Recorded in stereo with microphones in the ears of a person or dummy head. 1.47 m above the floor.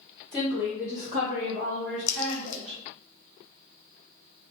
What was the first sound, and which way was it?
A woman speaking, centre (ahead or behind).